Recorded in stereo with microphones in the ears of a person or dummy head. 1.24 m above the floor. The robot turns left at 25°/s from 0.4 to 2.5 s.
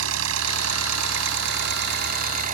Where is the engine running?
85° right; by 2.5 s 135° right.